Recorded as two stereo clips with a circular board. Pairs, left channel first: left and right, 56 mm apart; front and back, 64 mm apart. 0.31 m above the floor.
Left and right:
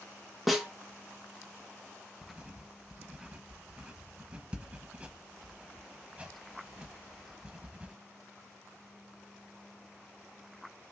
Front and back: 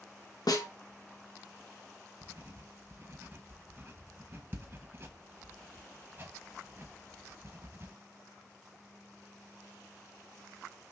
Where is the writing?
150° right, 0.8 m.